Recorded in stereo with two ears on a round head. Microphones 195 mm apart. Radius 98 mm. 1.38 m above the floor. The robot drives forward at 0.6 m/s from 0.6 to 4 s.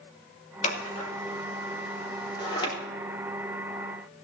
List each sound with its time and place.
0.6 s scissors: 35° left (ahead or behind), 2.5 m; by 2.7 s 25° left (ahead or behind), 3.5 m